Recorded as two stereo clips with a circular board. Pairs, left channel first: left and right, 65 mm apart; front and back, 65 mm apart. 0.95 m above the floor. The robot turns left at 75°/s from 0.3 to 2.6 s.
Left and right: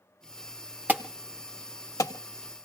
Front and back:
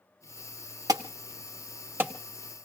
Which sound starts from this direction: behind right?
An alarm, at 0.9 s.